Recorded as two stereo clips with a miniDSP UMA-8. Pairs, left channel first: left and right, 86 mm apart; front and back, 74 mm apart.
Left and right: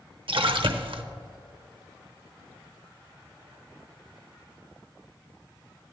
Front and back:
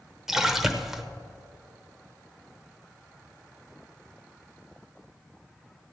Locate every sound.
0.3 s a splash: 95° right, 0.8 m